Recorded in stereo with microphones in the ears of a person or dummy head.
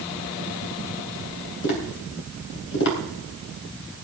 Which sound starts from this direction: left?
Tapping, at 1.6 s.